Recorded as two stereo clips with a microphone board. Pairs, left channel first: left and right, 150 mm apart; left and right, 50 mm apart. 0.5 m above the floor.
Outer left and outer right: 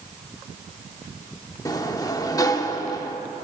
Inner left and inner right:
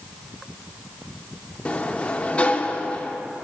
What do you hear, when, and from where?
1.6 s a sliding door: 25° left (ahead or behind), 0.6 m